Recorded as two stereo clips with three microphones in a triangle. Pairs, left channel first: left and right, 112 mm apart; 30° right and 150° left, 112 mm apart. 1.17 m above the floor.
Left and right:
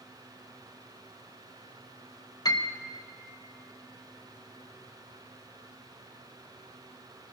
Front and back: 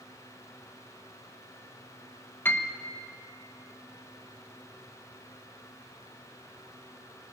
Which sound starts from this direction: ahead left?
A piano, at 2.5 s.